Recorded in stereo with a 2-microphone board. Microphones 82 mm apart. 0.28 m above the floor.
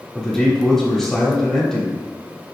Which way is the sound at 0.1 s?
5° left (ahead or behind).